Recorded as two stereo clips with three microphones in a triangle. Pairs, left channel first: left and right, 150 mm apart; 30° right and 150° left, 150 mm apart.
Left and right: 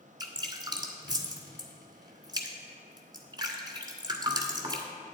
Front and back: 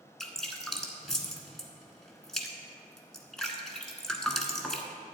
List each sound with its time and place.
0.2 s dripping: 115° right, 1.3 m